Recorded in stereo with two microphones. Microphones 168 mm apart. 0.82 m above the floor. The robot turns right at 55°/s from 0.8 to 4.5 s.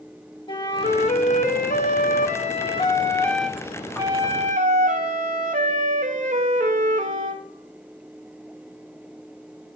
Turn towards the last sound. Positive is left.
turn(degrees=-120)